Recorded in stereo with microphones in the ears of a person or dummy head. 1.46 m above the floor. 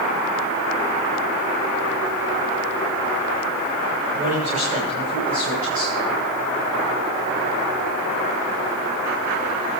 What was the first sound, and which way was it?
A man speaking, 35° right (ahead or behind).